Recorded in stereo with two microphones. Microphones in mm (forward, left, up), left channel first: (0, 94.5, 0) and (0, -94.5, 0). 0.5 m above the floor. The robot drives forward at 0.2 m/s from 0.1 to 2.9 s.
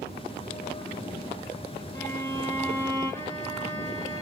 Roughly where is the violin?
Centre.